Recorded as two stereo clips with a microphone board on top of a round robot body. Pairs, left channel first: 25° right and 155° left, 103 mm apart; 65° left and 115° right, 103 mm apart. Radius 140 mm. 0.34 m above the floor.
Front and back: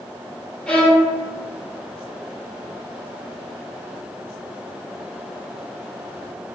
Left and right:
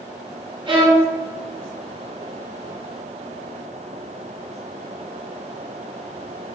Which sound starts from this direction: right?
A violin, at 0.7 s.